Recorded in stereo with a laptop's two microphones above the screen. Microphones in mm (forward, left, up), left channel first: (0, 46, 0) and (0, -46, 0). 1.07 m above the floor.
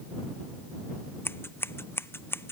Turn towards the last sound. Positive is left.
turn(degrees=25)  # may be behind; listen again after turning